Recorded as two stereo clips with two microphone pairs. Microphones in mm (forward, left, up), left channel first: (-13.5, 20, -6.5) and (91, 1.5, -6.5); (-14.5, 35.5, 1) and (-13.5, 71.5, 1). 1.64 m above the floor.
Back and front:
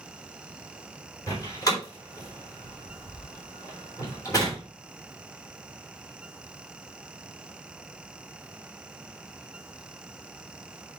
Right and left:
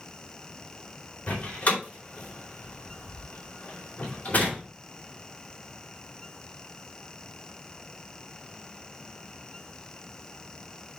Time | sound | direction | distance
1.3 | a door slam | 135° right | 4 m